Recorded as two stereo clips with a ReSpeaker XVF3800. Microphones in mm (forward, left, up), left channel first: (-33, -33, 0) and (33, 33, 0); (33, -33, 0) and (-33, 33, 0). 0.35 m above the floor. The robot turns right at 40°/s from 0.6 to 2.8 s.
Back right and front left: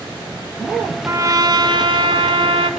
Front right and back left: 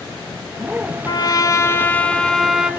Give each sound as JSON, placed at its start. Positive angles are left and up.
{"t": 1.1, "sound": "a trumpet", "azimuth_deg": -10, "distance_m": 1.0}